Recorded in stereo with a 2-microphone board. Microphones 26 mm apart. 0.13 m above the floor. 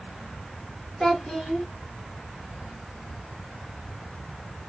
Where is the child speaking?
25° left (ahead or behind), 1.3 m.